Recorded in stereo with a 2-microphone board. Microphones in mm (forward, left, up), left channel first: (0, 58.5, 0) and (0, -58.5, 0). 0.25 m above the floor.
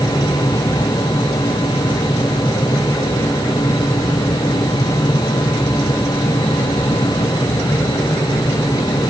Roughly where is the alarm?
No alarm in this recording.